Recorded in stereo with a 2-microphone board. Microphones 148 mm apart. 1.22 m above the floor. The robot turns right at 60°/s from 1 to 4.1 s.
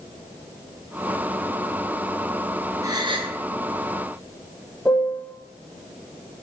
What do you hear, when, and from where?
2.8 s a gasp: 145° right, 0.5 m; by 3.4 s 115° right, 0.5 m
4.8 s a piano: 10° left (ahead or behind), 0.5 m